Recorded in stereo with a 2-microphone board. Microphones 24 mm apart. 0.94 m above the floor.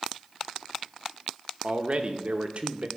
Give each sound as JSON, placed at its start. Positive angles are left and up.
{"t": 1.6, "sound": "a man speaking", "side_deg": -55, "distance_m": 0.9}